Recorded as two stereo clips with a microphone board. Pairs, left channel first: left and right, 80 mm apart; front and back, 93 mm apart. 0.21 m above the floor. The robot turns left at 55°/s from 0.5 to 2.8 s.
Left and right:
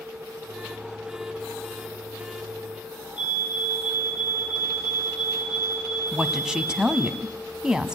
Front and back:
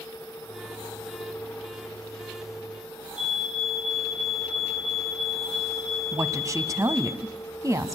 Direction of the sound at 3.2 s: 100° left.